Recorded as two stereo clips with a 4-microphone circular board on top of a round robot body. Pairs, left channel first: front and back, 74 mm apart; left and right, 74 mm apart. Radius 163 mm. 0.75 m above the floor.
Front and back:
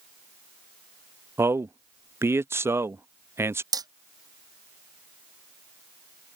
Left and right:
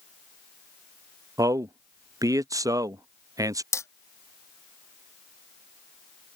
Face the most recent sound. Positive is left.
turn(degrees=145)